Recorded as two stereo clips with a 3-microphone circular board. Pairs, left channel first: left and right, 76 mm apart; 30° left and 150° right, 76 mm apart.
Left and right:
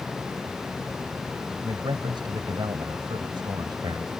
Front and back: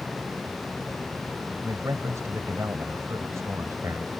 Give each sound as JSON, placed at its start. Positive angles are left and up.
{"t": 1.6, "sound": "a man speaking", "azimuth_deg": -100}